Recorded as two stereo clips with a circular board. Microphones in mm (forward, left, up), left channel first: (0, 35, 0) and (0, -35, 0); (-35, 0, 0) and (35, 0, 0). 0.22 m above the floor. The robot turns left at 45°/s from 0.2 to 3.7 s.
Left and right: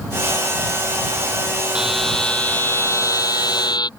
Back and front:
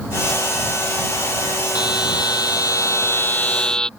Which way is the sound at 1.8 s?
170° right.